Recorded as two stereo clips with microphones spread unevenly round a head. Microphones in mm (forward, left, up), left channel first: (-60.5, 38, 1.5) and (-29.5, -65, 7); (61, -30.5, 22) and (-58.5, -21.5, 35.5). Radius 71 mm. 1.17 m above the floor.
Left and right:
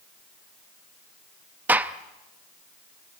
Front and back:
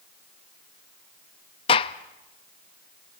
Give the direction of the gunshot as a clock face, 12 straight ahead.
12 o'clock.